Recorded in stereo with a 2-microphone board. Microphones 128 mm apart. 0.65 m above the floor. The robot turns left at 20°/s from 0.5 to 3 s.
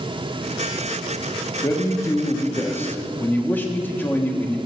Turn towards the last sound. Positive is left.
turn(degrees=15)  # may be behind; listen again after turning